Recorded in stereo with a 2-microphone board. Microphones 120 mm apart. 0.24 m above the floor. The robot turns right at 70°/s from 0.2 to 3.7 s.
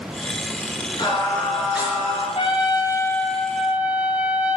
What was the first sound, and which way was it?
Singing, 135° left.